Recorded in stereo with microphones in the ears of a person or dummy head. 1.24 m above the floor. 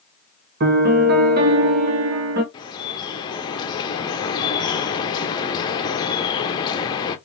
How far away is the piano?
About 1.1 m.